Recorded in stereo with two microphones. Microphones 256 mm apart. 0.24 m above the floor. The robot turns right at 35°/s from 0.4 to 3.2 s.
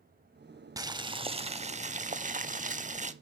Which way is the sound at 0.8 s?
150° right.